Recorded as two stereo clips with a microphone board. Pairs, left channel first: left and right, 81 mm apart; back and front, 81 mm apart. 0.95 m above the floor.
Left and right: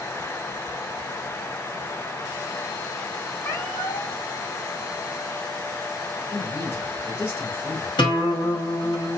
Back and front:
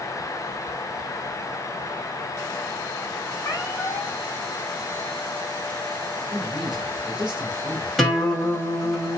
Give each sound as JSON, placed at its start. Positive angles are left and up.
{"t": 3.4, "sound": "a cat meowing", "azimuth_deg": 130, "distance_m": 1.5}
{"t": 6.3, "sound": "a man speaking", "azimuth_deg": 30, "distance_m": 2.5}
{"t": 8.0, "sound": "a guitar", "azimuth_deg": 90, "distance_m": 1.7}